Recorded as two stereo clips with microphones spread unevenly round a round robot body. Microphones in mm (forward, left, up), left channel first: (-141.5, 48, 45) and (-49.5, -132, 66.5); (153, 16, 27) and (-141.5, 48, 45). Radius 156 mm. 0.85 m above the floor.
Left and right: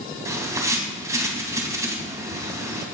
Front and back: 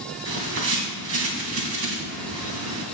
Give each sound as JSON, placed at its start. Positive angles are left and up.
{"t": 0.2, "sound": "a bird", "azimuth_deg": -135, "distance_m": 2.5}